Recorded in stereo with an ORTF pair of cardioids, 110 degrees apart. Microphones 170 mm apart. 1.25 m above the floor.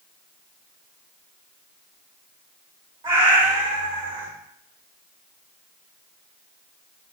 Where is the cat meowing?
35° right, 2.5 m.